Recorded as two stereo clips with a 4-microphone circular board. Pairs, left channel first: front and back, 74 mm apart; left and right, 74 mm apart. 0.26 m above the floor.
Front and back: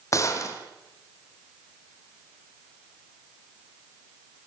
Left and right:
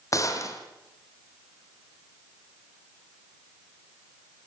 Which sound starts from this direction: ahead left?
A gunshot, at 0.1 s.